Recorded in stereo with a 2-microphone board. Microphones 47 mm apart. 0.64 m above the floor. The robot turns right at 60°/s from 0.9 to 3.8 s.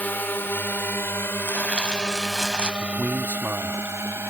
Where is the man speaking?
115° right; by 3.9 s 55° right.